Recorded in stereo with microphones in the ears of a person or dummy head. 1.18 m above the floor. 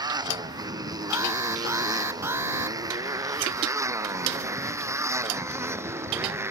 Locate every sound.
0.0 s a motorcycle: 20° right (ahead or behind); by 6.5 s 15° right (ahead or behind)
1.1 s an alarm: 15° right (ahead or behind)